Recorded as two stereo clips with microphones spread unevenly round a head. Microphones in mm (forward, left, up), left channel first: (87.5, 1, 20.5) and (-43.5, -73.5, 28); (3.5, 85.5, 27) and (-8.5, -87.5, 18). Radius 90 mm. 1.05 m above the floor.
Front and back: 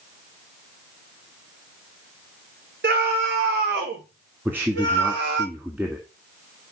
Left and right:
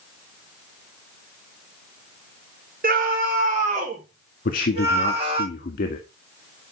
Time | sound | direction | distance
2.8 | a scream | 135° right | 3.5 m
4.5 | a man speaking | 130° left | 1.7 m